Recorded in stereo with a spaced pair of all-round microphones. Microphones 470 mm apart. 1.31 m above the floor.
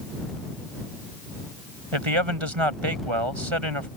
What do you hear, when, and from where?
1.9 s a man speaking: 90° right